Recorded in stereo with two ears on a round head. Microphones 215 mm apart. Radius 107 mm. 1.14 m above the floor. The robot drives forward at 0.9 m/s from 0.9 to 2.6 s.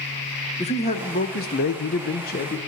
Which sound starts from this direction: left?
A man speaking, at 0.6 s.